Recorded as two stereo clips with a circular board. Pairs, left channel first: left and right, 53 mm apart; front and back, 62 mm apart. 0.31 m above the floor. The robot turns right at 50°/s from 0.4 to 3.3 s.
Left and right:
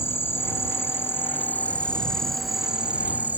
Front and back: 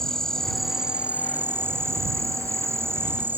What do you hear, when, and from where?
0.0 s an insect: 80° left; by 3.4 s 135° right